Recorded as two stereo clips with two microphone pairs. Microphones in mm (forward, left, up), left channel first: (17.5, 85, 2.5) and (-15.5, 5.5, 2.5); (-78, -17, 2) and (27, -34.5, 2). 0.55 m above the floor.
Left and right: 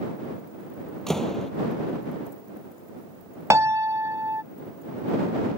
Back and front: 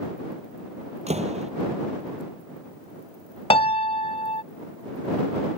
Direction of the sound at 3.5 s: 170° right.